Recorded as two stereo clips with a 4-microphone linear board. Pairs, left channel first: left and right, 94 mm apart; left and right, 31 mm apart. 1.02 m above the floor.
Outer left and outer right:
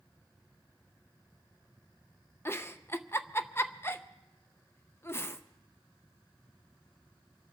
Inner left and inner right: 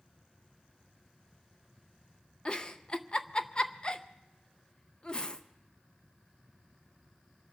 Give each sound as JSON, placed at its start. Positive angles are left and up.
{"t": 2.5, "sound": "a giggle", "side_deg": 25, "distance_m": 0.6}